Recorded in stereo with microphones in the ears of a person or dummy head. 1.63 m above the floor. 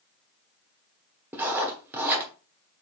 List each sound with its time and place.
1.3 s writing: 10° right (ahead or behind), 1.1 m